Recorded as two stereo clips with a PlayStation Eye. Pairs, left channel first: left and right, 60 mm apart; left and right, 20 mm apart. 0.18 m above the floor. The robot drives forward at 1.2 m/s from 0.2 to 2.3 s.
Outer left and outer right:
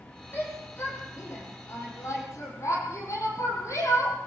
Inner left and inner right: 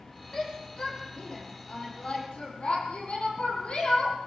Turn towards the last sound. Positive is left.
turn(degrees=55)  # may be behind; listen again after turning